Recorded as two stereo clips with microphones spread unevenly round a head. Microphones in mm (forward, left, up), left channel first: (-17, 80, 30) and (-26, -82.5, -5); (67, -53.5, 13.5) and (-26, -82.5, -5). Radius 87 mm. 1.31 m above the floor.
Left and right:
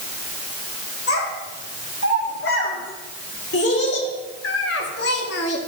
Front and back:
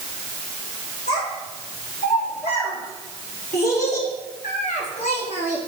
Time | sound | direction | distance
1.1 | a child speaking | 55° left | 5 m